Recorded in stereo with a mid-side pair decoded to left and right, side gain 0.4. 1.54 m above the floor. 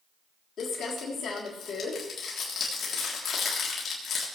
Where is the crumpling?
65° left, 3.5 m.